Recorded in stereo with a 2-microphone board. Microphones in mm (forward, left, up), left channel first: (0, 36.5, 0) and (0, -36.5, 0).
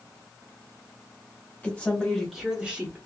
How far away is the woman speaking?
About 1.2 m.